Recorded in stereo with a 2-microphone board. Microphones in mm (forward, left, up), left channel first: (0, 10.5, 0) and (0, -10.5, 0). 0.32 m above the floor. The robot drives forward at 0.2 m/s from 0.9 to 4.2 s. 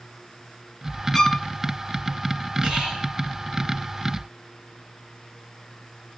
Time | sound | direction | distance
1.1 | a violin | 25° left (ahead or behind) | 0.9 m
2.6 | whispering | 45° right (ahead or behind) | 2.5 m